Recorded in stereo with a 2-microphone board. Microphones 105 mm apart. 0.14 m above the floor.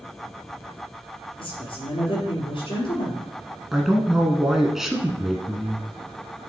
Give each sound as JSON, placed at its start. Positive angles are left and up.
{"t": 1.4, "sound": "a woman speaking", "side_deg": 55, "distance_m": 3.0}
{"t": 3.7, "sound": "a man speaking", "side_deg": -5, "distance_m": 1.2}